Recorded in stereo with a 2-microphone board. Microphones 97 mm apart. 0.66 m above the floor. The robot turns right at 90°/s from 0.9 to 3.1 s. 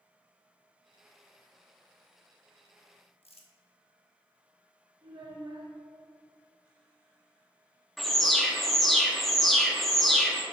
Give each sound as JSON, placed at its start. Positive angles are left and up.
{"t": 3.2, "sound": "crumpling", "side_deg": 90, "distance_m": 0.8}
{"t": 5.0, "sound": "a child speaking", "side_deg": -50, "distance_m": 1.3}
{"t": 8.0, "sound": "an alarm", "side_deg": 0, "distance_m": 0.8}